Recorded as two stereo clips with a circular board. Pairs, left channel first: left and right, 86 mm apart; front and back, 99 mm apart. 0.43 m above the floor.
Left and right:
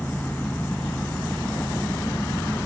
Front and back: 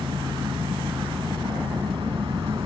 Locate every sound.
0.0 s an engine running: 155° left, 0.9 m